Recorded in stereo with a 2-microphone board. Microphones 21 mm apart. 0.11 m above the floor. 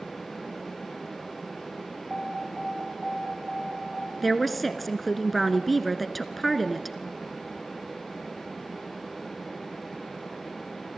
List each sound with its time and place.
2.1 s an alarm: 10° left (ahead or behind), 5.5 m
4.2 s a woman speaking: centre (ahead or behind), 1.1 m